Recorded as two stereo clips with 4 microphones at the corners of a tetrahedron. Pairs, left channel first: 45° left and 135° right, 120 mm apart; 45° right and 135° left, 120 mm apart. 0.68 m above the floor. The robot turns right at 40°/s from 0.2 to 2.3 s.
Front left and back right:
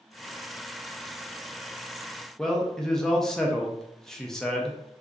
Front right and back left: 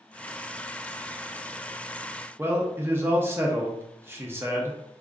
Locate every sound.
2.4 s a man speaking: 120° left, 0.6 m